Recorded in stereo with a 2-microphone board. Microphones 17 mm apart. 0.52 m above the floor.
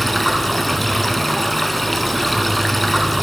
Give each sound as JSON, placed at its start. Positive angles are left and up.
{"t": 0.0, "sound": "running water", "side_deg": 5, "distance_m": 0.8}